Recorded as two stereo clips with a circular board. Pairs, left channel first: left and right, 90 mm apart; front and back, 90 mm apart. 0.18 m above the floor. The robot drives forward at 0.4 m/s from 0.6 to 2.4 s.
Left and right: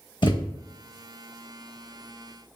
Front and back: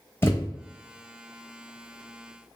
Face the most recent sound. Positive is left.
turn(degrees=105)